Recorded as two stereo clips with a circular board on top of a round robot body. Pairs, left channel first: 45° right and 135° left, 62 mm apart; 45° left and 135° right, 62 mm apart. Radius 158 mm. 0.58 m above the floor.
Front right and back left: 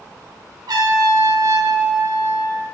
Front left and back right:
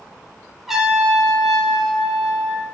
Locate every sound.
0.7 s a trumpet: 140° left, 4 m